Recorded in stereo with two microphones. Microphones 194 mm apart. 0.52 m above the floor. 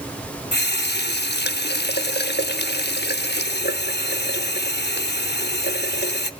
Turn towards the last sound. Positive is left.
turn(degrees=60)  # may be behind; listen again after turning